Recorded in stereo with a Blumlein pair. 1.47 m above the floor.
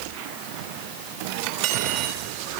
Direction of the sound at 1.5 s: 45° right.